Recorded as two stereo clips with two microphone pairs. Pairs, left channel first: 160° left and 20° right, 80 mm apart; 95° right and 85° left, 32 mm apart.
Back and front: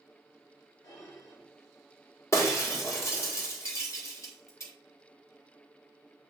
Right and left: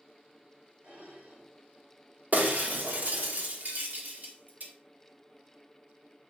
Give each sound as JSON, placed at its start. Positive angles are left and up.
{"t": 0.8, "sound": "dishes clattering", "azimuth_deg": 125, "distance_m": 2.5}
{"t": 2.3, "sound": "breaking glass", "azimuth_deg": 105, "distance_m": 1.5}